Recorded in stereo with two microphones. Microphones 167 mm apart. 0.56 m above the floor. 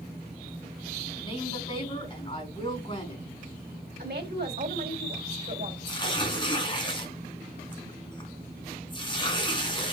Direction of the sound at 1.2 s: 30° left (ahead or behind).